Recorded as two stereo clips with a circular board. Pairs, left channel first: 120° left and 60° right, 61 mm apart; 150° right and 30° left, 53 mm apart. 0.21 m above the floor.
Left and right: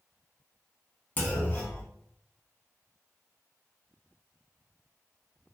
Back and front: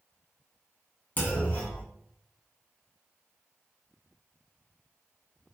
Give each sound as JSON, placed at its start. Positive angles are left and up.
{"t": 1.2, "sound": "a clunk", "azimuth_deg": 170, "distance_m": 0.9}